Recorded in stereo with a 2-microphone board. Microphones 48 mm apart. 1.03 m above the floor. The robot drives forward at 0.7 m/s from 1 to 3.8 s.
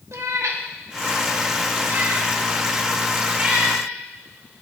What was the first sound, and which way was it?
A cat meowing, 80° right.